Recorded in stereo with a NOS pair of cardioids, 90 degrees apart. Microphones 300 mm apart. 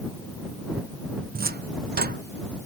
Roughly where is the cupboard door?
Ahead right.